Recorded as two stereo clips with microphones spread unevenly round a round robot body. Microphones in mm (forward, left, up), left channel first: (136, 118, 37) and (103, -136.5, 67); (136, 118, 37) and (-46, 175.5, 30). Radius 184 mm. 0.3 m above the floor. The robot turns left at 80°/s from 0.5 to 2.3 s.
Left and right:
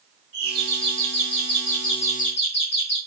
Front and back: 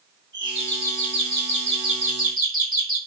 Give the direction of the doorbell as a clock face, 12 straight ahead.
4 o'clock.